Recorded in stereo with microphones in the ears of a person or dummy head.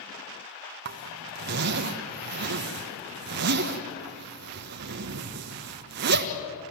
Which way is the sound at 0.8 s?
55° right (ahead or behind).